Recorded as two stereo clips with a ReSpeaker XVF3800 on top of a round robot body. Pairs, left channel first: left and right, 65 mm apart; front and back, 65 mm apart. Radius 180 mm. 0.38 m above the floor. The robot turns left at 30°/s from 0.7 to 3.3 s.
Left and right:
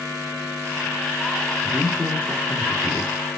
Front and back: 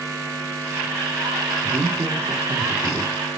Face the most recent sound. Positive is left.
turn(degrees=115)